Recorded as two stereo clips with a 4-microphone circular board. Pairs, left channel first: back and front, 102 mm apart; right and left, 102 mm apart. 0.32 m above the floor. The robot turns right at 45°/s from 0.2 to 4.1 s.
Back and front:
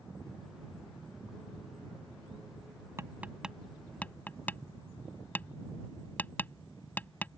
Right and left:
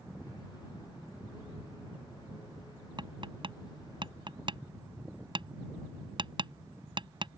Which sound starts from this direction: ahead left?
Tapping, at 3.0 s.